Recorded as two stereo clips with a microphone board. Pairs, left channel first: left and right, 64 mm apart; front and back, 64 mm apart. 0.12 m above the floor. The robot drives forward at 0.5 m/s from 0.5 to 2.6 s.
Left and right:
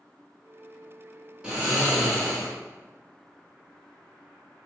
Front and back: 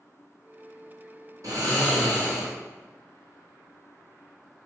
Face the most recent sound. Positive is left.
turn(degrees=-170)